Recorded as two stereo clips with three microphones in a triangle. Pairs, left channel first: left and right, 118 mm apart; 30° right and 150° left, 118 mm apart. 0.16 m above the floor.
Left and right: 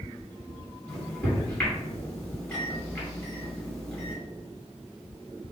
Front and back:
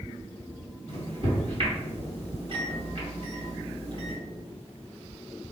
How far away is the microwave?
About 2.0 m.